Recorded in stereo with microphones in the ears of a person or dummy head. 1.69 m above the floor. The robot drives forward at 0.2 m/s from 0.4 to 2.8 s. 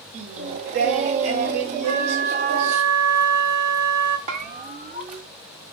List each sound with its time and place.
0.1 s singing: 50° right (ahead or behind), 0.9 m; by 2.8 s 45° right (ahead or behind), 1.0 m
1.8 s a flute: 55° right (ahead or behind), 1.2 m; by 4.2 s 50° right (ahead or behind), 1.3 m
4.3 s a bell: 35° right (ahead or behind), 0.7 m